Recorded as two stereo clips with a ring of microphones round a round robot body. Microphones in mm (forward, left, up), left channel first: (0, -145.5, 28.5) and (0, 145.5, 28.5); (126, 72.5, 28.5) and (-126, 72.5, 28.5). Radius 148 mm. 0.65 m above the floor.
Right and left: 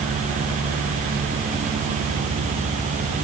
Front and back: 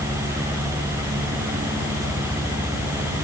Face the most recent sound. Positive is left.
No sound to turn to.